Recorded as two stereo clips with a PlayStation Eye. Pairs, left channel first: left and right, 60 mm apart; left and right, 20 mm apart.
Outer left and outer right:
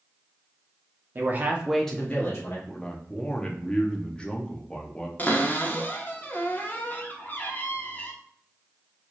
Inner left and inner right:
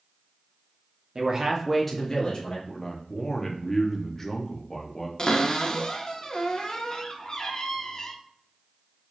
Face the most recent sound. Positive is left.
turn(degrees=35)  # may be behind; listen again after turning